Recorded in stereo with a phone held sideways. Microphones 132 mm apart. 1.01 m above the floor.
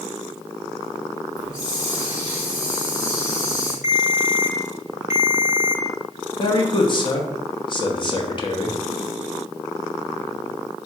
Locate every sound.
1.4 s a hiss: 25° left (ahead or behind), 1.4 m
3.8 s a ringtone: 20° right (ahead or behind), 0.8 m
6.4 s a man speaking: 40° left (ahead or behind), 0.7 m